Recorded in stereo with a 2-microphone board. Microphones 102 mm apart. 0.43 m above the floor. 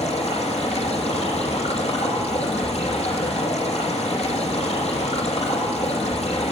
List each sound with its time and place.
0.0 s running water: 85° left, 9.5 m